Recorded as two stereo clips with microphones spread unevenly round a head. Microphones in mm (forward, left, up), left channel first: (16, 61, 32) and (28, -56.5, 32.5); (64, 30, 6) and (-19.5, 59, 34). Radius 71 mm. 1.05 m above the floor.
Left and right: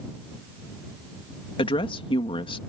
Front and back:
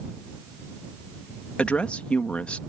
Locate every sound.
1.6 s a woman speaking: 55° left